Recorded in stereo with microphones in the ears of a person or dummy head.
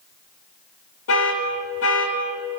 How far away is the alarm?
About 4 m.